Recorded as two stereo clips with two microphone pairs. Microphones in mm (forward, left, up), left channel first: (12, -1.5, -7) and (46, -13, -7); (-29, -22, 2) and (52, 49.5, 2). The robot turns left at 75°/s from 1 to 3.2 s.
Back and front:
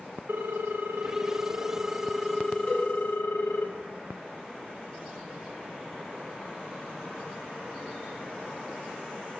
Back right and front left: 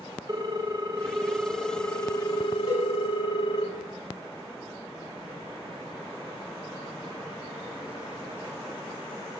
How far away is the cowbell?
About 4.5 m.